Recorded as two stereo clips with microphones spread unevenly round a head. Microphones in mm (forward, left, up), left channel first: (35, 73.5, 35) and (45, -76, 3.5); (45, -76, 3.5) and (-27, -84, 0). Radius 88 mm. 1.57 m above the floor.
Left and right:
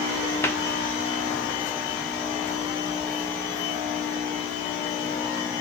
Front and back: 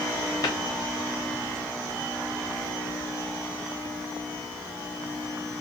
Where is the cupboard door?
30° left, 0.8 m.